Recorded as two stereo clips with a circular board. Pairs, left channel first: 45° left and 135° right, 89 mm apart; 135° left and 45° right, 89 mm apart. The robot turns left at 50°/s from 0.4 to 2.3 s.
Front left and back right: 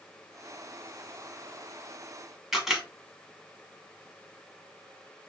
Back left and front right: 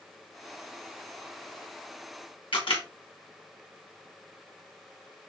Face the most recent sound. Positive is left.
turn(degrees=140)